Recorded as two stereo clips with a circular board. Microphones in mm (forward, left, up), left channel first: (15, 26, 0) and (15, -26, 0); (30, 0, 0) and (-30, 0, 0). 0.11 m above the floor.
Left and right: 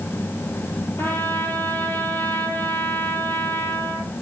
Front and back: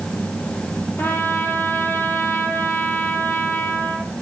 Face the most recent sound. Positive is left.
turn(degrees=55)